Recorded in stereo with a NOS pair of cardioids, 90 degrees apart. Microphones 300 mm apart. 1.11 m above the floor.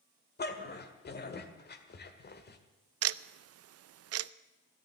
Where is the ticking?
55° right, 0.5 m.